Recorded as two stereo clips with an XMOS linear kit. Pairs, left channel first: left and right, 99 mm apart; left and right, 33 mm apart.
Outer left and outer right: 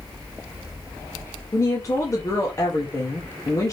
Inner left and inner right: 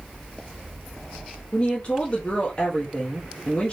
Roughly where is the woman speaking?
Left.